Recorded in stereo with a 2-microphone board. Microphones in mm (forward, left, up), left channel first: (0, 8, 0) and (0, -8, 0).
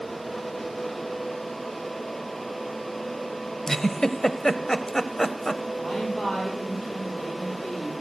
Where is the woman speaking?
65° left (ahead or behind), 7 m.